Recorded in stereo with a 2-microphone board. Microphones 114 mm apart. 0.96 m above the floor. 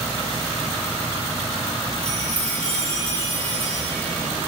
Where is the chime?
40° left (ahead or behind), 5.5 m.